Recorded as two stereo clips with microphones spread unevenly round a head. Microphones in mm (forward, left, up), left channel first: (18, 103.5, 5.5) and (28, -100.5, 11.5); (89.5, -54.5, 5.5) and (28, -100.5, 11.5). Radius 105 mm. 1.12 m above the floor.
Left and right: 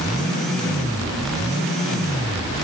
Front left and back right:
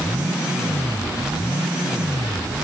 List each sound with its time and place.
Only background noise.